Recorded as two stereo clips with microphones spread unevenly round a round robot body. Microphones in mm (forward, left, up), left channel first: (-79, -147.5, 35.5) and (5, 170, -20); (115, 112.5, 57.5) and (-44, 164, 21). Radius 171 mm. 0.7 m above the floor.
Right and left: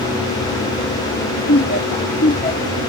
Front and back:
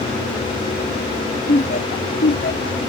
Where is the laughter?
60° right; by 2.8 s 35° right.